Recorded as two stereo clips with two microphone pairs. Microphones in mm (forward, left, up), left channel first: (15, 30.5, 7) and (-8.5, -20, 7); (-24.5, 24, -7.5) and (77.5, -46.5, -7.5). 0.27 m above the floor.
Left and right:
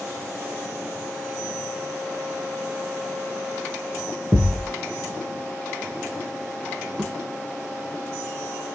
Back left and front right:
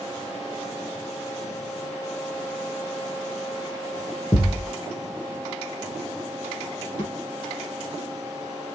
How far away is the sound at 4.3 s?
About 1.0 m.